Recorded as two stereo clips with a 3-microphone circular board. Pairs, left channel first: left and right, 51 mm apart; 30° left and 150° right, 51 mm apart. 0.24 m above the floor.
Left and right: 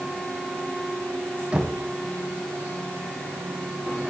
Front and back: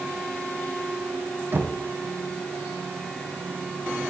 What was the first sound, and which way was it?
Knocking, 150° right.